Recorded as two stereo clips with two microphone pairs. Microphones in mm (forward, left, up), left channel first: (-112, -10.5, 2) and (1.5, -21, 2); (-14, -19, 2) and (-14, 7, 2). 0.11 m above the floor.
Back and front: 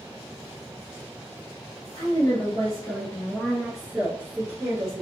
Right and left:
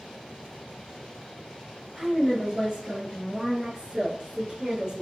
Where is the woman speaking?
155° left, 2 m; by 5.0 s 35° left, 2 m.